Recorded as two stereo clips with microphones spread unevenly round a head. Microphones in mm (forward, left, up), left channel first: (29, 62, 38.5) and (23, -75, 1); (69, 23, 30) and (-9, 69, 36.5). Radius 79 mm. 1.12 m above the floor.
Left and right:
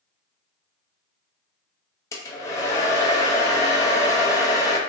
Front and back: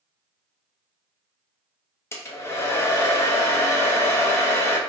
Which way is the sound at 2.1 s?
30° left.